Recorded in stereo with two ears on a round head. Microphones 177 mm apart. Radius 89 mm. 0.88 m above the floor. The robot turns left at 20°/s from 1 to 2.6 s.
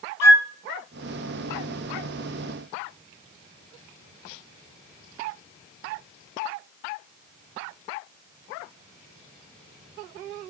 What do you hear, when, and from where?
0.2 s a flute: 15° left (ahead or behind), 0.6 m